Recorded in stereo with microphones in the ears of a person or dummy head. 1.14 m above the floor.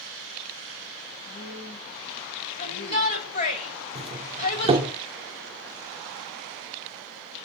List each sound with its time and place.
1.2 s a woman speaking: 60° left (ahead or behind), 7.5 m
2.6 s a shout: 45° left (ahead or behind), 7.5 m
4.0 s a doorbell: 30° right (ahead or behind), 3.5 m